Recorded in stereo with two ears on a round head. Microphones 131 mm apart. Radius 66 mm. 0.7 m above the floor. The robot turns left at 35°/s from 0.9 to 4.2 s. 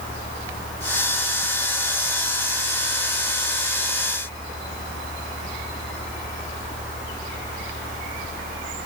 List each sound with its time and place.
Only background noise.